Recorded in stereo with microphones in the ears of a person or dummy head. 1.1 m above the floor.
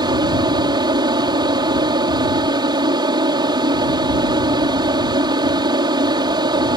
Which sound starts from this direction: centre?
An aircraft, at 0.0 s.